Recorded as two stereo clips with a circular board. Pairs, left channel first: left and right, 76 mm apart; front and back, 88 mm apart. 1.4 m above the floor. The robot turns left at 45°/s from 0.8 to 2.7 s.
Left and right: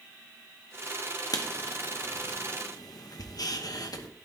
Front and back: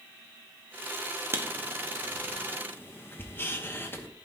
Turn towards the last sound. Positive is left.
turn(degrees=60)